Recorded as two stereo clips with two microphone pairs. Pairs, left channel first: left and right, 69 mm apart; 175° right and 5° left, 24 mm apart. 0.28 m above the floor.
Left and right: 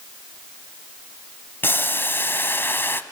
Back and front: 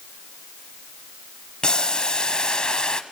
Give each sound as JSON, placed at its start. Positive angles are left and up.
{"t": 1.6, "sound": "boiling", "azimuth_deg": 135, "distance_m": 0.9}